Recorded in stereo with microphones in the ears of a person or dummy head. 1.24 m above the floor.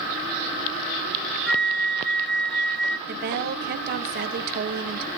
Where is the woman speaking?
55° right (ahead or behind), 1.0 m.